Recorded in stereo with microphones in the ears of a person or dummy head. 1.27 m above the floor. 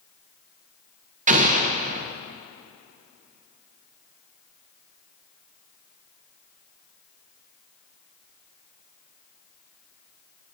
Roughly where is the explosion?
Right.